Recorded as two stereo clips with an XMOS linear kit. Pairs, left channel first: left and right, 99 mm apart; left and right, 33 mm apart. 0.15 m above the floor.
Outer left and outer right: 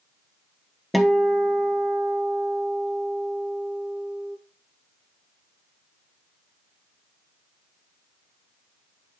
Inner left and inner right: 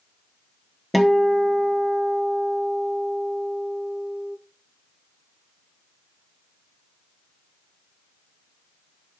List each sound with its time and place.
0.9 s a guitar: centre (ahead or behind), 1.0 m